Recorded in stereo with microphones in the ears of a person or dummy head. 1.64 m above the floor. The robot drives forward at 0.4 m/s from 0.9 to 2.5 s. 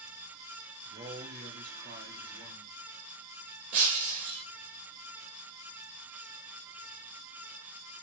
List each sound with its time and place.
0.8 s a man speaking: 25° right (ahead or behind), 0.7 m; by 2.8 s 15° right (ahead or behind), 1.2 m
3.7 s breaking glass: 5° right (ahead or behind), 0.7 m